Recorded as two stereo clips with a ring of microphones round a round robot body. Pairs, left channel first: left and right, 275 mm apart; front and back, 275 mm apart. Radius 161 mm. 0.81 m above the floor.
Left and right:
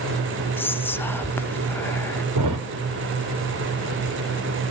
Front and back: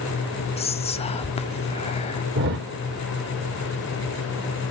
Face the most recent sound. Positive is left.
turn(degrees=-125)